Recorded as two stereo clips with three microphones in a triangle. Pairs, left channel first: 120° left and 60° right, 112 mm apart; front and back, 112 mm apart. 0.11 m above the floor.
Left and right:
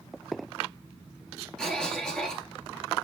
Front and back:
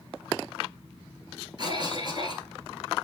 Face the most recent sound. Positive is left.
turn(degrees=-160)